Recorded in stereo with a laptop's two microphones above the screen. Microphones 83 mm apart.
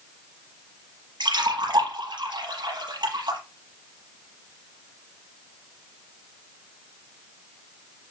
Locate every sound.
1.2 s a splash: 60° right (ahead or behind), 5.5 m